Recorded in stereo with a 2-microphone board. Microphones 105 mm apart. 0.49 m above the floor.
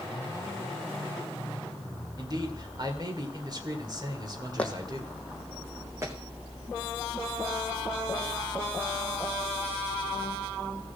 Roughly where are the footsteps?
Centre.